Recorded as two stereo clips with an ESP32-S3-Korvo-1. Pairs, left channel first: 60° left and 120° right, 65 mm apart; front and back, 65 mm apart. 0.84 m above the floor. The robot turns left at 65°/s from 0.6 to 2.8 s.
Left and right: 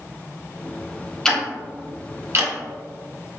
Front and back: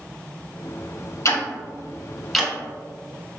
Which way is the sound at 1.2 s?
20° right.